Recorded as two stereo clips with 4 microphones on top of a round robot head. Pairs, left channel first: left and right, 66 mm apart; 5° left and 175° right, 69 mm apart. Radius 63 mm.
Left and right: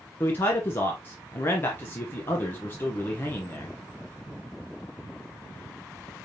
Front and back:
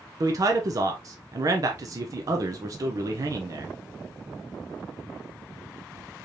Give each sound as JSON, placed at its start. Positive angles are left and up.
{"t": 0.2, "sound": "a man speaking", "azimuth_deg": 150, "distance_m": 0.7}